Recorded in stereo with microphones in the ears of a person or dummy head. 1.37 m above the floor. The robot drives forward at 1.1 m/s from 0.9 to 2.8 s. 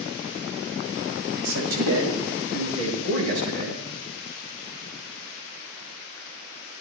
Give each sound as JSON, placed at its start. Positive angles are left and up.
{"t": 1.4, "sound": "a man speaking", "side_deg": -75, "distance_m": 6.0}